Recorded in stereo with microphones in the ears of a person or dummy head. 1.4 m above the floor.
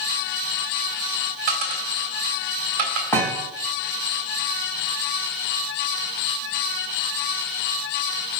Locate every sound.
1.5 s a dropped coin: 45° right (ahead or behind), 2.5 m
3.1 s a thud: 10° left (ahead or behind), 2.5 m